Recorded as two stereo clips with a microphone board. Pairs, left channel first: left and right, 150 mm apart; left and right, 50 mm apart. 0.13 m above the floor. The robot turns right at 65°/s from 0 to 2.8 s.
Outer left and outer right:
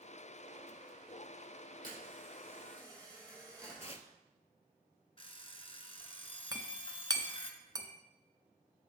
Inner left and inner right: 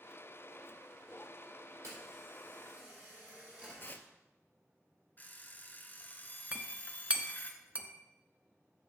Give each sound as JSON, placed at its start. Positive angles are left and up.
{"t": 1.8, "sound": "a camera shutter", "azimuth_deg": -90, "distance_m": 4.5}
{"t": 3.8, "sound": "tearing paper", "side_deg": 45, "distance_m": 0.6}
{"t": 5.2, "sound": "an alarm clock", "side_deg": 40, "distance_m": 1.1}
{"t": 6.5, "sound": "a clink", "side_deg": -25, "distance_m": 0.9}